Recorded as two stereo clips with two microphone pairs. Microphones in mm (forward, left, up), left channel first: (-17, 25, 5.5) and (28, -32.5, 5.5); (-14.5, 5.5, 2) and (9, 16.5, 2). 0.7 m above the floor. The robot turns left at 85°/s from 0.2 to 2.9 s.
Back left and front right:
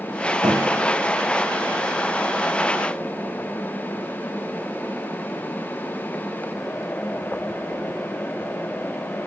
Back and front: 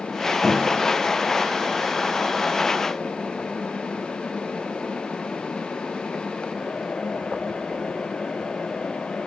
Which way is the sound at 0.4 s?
60° right.